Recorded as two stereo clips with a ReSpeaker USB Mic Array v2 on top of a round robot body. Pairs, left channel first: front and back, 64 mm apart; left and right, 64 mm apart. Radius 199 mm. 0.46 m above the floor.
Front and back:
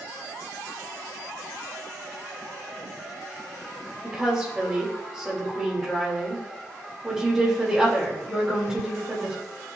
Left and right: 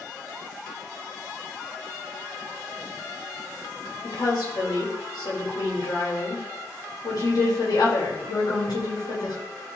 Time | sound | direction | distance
4.0 | a woman speaking | 100° left | 3.5 m